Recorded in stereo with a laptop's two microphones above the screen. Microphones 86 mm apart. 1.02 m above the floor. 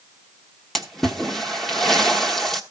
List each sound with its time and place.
0.8 s a splash: 5° left (ahead or behind), 1.2 m